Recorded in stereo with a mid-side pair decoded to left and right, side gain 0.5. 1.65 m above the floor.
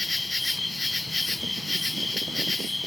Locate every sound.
0.0 s an insect: 15° left